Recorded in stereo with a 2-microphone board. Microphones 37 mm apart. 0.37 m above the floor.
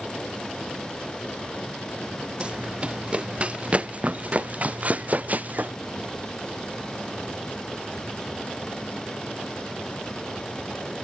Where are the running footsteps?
30° right (ahead or behind); by 5.7 s 45° right (ahead or behind).